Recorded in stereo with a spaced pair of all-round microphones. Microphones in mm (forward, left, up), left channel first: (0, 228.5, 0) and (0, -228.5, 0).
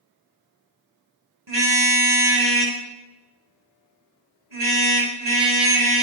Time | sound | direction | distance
1.5 | a car horn | 65° right (ahead or behind) | 4 m